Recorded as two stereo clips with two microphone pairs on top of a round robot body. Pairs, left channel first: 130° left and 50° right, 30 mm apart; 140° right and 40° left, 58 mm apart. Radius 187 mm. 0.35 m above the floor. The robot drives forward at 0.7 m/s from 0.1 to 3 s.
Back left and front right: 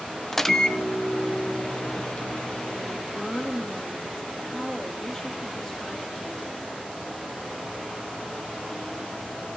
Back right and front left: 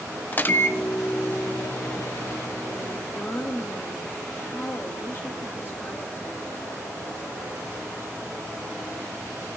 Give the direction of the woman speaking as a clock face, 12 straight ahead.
6 o'clock.